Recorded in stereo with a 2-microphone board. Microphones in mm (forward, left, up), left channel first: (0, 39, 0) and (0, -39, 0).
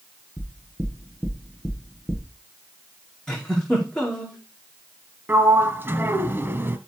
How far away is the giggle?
About 5 m.